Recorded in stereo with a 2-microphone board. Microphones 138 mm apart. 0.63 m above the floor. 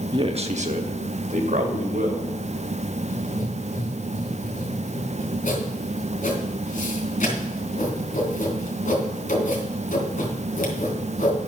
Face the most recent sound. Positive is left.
turn(degrees=70)  # may be behind; listen again after turning